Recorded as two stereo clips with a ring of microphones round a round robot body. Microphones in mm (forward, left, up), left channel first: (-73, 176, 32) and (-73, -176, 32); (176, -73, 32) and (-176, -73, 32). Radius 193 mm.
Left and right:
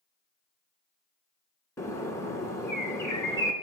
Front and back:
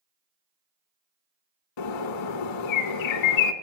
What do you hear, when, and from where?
1.8 s a bird: 5° left, 0.8 m